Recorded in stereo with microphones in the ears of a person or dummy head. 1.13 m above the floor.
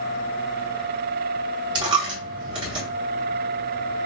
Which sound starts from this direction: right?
A dropped coin, at 1.8 s.